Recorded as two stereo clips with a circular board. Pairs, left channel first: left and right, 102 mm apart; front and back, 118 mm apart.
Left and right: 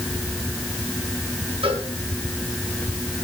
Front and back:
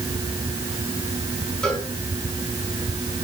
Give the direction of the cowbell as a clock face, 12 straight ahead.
3 o'clock.